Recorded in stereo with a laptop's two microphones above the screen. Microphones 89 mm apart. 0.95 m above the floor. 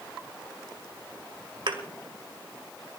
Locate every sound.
1.7 s a thud: 75° right (ahead or behind), 2 m